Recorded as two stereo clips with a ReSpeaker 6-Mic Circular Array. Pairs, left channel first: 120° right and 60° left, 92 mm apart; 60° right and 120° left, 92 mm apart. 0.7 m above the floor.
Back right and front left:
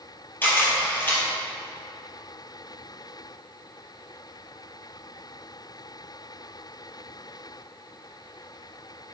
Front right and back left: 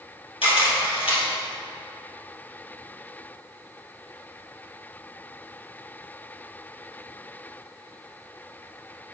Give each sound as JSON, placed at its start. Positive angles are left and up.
{"t": 0.4, "sound": "a camera shutter", "azimuth_deg": -55, "distance_m": 3.0}